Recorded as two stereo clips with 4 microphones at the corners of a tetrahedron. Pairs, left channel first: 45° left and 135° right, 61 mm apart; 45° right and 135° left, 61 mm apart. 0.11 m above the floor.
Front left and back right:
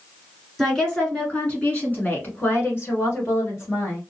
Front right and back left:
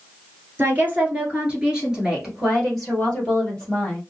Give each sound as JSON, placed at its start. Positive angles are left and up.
{"t": 0.6, "sound": "a woman speaking", "azimuth_deg": 130, "distance_m": 1.7}